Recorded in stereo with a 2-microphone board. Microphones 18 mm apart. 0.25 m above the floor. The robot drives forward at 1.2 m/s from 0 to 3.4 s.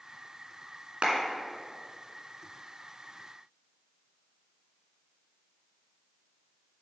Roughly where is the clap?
Right.